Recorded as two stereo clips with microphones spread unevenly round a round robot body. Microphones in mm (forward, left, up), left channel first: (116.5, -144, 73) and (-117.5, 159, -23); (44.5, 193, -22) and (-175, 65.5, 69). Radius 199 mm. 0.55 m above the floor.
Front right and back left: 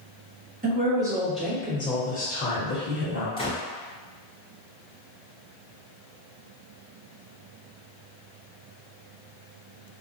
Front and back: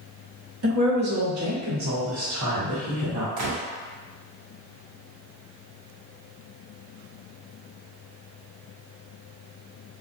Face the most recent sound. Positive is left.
turn(degrees=-135)